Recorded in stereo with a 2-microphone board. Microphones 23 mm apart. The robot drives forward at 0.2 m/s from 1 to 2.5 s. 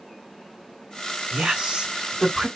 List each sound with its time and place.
1.3 s a woman speaking: 45° right (ahead or behind), 1.9 m